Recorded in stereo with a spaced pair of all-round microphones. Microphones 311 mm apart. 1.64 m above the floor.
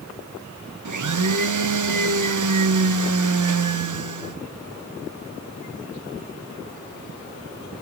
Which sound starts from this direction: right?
A blender, at 0.8 s.